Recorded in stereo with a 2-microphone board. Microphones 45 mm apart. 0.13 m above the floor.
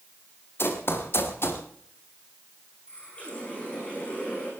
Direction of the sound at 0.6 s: 60° left (ahead or behind).